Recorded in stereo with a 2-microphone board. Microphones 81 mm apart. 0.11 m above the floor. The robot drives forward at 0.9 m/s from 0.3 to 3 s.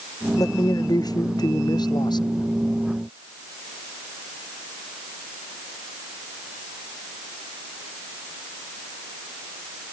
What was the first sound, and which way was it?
A man speaking, 50° left (ahead or behind).